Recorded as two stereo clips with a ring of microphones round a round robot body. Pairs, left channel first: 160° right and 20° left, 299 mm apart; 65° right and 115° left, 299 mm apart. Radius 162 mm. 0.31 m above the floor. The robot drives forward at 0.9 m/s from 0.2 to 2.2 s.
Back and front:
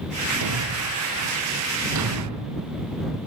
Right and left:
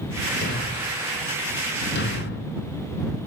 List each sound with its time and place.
0.4 s a thud: 5° right, 3 m; by 2.5 s 10° right, 1.4 m